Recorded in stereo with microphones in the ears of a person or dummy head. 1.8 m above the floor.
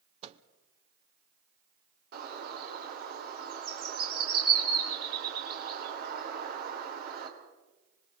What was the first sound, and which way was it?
A microwave, 40° right (ahead or behind).